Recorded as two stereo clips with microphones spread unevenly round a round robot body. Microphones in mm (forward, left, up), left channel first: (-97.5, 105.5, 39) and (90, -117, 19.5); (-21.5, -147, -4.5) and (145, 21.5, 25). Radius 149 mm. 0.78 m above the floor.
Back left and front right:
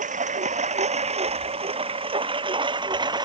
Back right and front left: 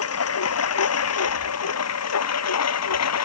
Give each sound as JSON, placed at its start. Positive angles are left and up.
{"t": 0.0, "sound": "a lawn mower", "azimuth_deg": -115}